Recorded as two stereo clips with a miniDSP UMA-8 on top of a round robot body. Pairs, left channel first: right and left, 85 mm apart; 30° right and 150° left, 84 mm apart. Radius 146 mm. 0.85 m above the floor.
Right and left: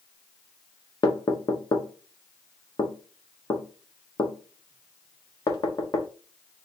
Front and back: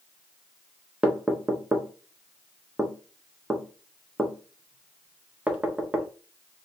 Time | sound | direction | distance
1.0 | knocking | 130° right | 1.0 m